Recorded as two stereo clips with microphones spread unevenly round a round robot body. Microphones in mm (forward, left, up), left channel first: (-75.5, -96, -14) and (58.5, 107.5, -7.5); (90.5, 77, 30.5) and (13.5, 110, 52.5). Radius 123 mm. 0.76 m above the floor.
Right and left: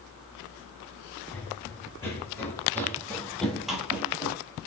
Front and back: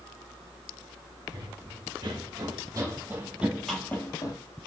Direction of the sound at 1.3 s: 155° left.